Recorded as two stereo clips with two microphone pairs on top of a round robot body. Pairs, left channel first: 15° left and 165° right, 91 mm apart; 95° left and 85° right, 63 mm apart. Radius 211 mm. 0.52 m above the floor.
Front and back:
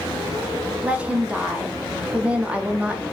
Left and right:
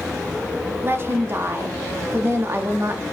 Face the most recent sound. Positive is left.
turn(degrees=-90)